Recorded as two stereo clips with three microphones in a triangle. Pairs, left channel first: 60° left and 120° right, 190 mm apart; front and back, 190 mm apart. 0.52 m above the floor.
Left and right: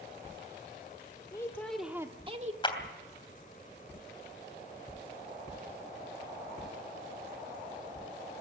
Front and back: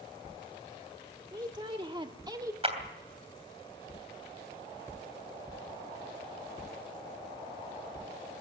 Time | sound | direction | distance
1.3 | a woman speaking | 120° left | 1.6 m
2.6 | a clap | 125° left | 3 m